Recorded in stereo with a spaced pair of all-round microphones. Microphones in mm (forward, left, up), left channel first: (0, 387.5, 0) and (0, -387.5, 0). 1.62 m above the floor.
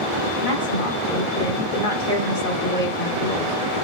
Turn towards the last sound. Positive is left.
turn(degrees=75)  # may be behind; listen again after turning